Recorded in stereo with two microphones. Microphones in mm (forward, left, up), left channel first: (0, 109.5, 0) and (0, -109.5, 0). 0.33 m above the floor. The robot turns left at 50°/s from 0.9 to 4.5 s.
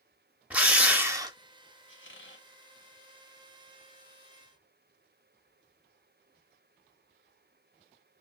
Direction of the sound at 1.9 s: 60° left (ahead or behind).